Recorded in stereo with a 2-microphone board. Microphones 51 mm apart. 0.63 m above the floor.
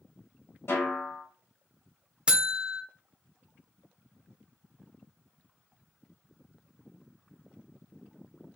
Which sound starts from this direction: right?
A buzzer, at 2.3 s.